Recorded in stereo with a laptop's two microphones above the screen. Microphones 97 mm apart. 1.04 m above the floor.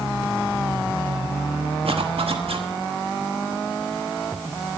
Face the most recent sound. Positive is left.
turn(degrees=-80)